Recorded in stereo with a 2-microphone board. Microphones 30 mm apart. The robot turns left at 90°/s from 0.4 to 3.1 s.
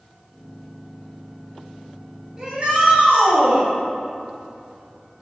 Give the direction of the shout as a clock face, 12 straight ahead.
1 o'clock.